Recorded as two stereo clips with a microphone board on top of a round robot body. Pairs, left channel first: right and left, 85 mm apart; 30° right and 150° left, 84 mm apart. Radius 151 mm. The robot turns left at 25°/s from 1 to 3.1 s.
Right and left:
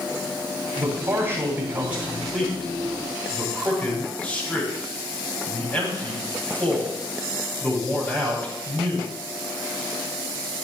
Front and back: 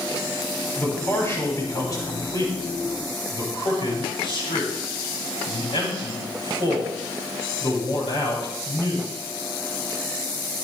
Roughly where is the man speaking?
Ahead left.